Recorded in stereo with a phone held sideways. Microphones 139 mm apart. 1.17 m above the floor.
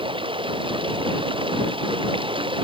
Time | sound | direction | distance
0.0 | running water | 40° right (ahead or behind) | ?